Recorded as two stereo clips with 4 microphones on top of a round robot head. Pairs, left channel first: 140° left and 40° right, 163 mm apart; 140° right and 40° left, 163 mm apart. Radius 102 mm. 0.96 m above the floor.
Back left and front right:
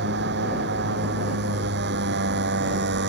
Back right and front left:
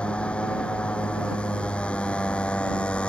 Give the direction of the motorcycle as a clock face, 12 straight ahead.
2 o'clock.